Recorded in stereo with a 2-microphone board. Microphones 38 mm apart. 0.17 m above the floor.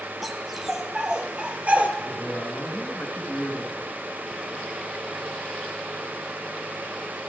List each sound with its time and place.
0.2 s a dog barking: 5° right (ahead or behind), 1.5 m; by 1.9 s 45° right (ahead or behind), 1.7 m
2.0 s a man speaking: 75° left (ahead or behind), 4.5 m